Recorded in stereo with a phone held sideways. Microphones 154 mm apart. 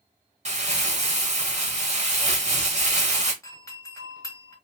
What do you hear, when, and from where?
0.5 s crumpling: 45° right (ahead or behind), 1.1 m
3.4 s a doorbell: 20° left (ahead or behind), 1.2 m